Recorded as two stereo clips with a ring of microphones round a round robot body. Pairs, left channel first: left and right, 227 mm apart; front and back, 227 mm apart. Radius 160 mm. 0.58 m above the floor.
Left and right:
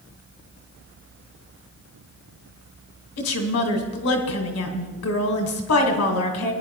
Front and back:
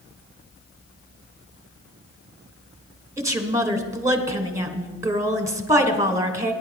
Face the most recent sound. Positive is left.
turn(degrees=105)